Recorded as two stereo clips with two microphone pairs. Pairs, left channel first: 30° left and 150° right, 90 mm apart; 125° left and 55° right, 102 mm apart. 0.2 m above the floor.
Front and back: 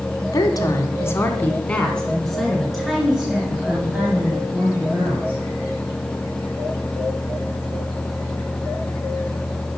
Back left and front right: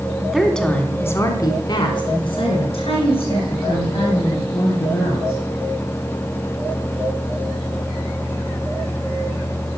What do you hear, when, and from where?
0.2 s a woman speaking: 30° left, 1.5 m; by 5.4 s 135° left, 4.5 m